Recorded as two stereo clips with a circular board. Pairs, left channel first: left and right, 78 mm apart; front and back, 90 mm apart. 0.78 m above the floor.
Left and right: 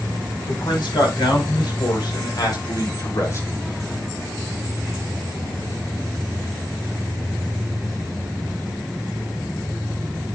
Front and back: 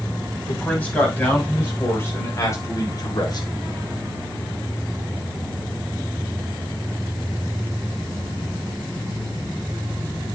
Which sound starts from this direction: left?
A man speaking, at 0.5 s.